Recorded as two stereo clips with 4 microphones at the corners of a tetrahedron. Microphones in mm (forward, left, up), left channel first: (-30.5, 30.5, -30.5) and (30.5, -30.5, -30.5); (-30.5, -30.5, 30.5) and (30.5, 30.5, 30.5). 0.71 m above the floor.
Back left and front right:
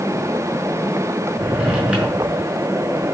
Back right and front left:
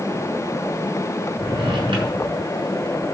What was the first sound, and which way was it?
A drawer, 30° left.